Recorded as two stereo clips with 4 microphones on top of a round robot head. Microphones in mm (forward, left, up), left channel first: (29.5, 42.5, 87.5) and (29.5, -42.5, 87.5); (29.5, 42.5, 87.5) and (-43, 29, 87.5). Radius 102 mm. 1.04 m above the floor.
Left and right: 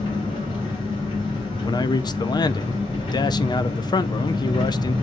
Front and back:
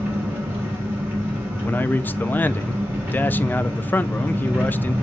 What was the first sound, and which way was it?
An engine running, 130° left.